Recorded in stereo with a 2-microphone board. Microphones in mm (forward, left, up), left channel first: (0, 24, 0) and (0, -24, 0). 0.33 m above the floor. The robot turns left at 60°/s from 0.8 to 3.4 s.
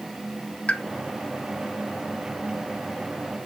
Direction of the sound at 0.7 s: 25° left (ahead or behind).